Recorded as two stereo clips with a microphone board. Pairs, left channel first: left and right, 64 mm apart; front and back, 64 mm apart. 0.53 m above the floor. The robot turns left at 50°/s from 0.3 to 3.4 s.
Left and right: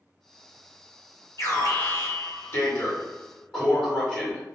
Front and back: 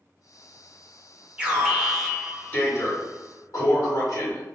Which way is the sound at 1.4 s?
115° left.